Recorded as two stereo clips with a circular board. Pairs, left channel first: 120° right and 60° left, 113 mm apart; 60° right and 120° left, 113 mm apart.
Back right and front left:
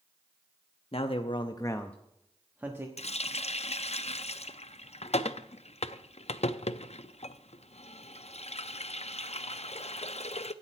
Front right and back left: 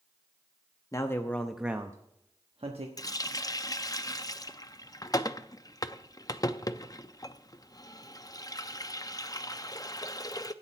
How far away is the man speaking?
About 1.0 m.